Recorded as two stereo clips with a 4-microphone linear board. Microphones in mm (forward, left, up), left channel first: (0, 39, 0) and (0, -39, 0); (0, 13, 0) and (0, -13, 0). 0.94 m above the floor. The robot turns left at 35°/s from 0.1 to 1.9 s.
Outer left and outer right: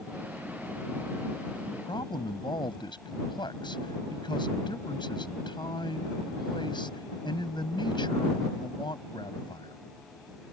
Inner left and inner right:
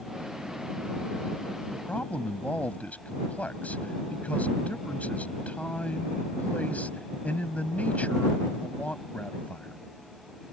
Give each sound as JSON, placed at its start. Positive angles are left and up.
{"t": 1.7, "sound": "a man speaking", "side_deg": 85}